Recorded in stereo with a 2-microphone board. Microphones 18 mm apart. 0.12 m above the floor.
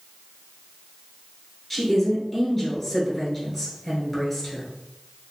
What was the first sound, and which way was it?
A woman speaking, 15° left (ahead or behind).